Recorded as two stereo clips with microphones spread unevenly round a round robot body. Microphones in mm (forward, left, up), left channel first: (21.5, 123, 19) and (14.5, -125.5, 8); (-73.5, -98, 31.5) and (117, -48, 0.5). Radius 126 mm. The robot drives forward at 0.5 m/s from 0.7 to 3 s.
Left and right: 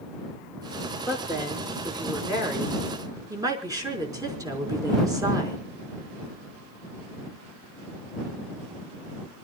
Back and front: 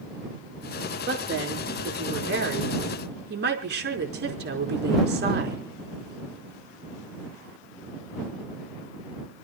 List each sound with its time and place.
1.1 s a woman speaking: 15° right, 6 m